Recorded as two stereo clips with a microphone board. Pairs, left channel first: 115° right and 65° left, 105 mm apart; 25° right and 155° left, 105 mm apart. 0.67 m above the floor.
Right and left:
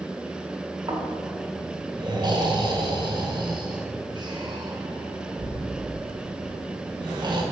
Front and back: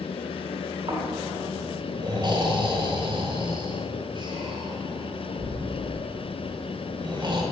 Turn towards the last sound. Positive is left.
turn(degrees=115)